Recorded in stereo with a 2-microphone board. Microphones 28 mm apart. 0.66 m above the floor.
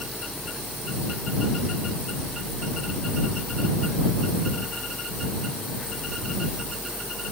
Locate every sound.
Only background noise.